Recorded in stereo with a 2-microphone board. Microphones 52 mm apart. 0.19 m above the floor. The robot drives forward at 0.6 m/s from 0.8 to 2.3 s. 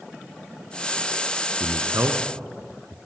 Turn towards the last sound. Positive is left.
turn(degrees=-60)  # may be behind; listen again after turning